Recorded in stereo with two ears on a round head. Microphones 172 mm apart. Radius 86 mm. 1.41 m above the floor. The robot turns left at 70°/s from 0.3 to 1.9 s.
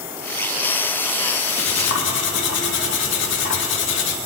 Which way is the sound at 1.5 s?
110° left.